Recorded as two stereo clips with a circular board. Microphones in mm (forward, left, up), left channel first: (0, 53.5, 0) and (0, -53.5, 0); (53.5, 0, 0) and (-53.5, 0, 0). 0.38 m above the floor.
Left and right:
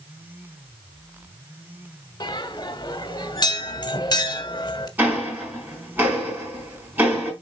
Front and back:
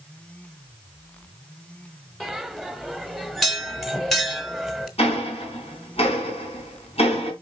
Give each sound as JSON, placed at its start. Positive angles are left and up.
{"t": 2.2, "sound": "a bell", "azimuth_deg": 90, "distance_m": 1.4}
{"t": 5.0, "sound": "ticking", "azimuth_deg": -15, "distance_m": 4.5}